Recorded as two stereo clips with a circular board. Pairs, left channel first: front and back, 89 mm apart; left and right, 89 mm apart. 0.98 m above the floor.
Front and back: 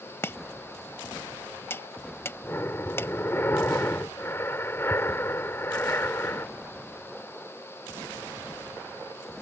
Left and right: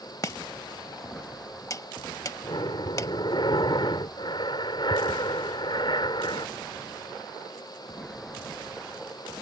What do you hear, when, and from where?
0.2 s chopping: 55° left
2.4 s breathing: 65° left